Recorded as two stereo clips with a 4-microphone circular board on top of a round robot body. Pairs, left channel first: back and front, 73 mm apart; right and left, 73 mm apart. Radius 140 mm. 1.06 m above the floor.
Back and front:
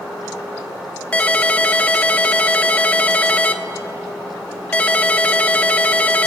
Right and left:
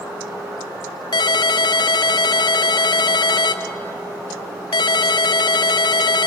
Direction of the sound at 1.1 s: 105° right.